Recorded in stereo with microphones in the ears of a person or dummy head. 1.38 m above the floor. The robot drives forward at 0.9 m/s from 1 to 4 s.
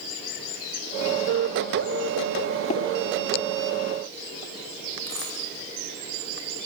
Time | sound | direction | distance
2.7 | tapping | 40° left (ahead or behind) | 3 m
5.1 | a dropped coin | 15° left (ahead or behind) | 9.5 m